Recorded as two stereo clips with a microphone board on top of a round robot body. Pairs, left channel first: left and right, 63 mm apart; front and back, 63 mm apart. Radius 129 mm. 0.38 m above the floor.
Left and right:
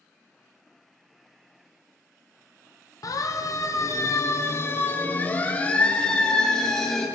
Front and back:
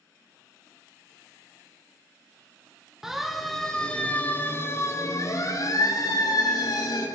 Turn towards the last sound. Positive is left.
turn(degrees=5)